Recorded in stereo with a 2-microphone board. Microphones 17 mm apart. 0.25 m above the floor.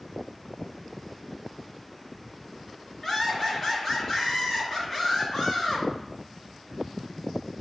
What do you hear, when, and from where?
3.0 s laughter: 20° left (ahead or behind), 1.6 m